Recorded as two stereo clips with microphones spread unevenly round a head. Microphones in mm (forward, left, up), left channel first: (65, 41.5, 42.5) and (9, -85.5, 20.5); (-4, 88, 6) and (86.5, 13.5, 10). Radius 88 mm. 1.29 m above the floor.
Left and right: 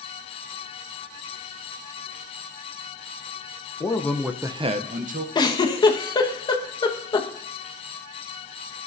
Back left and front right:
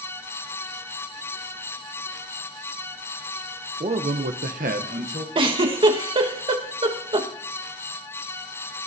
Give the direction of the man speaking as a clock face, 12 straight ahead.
12 o'clock.